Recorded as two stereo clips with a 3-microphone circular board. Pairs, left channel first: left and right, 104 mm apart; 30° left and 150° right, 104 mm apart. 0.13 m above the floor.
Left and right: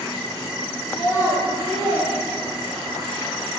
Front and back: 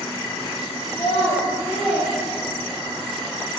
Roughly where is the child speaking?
Ahead.